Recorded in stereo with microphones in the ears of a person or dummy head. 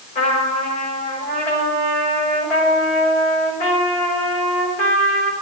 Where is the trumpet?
40° left (ahead or behind), 5 m.